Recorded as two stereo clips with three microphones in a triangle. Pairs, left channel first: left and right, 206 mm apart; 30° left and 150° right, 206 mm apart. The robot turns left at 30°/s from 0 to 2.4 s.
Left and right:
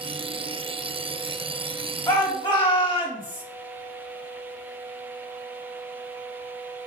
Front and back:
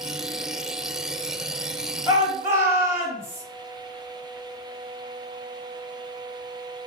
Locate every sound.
2.1 s a shout: 155° left, 1.5 m; by 3.4 s 140° left, 1.5 m